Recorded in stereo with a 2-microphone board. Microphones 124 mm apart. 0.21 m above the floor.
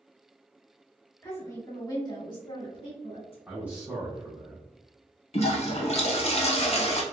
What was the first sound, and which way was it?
A woman speaking, 20° left (ahead or behind).